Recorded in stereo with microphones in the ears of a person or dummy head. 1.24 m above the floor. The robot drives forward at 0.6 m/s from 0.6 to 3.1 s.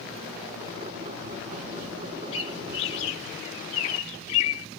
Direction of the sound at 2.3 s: 30° left (ahead or behind).